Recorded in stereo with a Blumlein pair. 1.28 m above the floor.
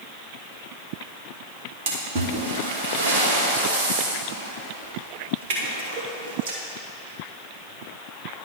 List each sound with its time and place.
1.9 s a splash: 50° right, 1.7 m